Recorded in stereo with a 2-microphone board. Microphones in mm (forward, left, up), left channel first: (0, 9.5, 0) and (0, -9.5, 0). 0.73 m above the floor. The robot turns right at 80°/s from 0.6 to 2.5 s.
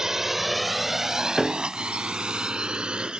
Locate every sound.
0.0 s a drone: 35° right (ahead or behind); by 3.2 s 60° right (ahead or behind)
1.4 s a piano: 10° right (ahead or behind); by 1.7 s 15° left (ahead or behind)